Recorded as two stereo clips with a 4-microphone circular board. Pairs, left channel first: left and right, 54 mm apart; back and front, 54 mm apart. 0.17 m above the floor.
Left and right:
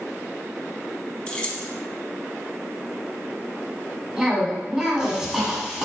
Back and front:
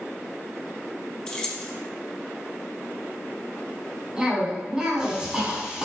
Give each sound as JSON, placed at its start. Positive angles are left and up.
{"t": 1.3, "sound": "keys jangling", "azimuth_deg": 130, "distance_m": 0.7}
{"t": 4.2, "sound": "a cough", "azimuth_deg": -40, "distance_m": 1.2}